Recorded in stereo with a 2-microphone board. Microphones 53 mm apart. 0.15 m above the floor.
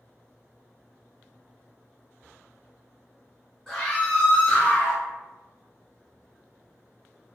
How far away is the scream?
About 1.4 m.